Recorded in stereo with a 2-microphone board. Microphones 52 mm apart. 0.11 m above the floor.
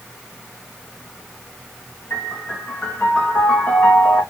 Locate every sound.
2.1 s a piano: 55° left (ahead or behind), 2.5 m